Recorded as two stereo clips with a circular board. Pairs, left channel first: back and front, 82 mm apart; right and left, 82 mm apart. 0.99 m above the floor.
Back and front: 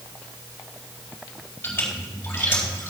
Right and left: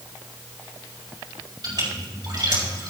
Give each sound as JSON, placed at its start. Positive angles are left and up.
{"t": 1.6, "sound": "a splash", "azimuth_deg": 115, "distance_m": 5.0}